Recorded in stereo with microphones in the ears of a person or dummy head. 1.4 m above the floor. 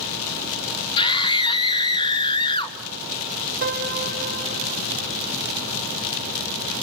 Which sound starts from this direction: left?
A scream, at 1.0 s.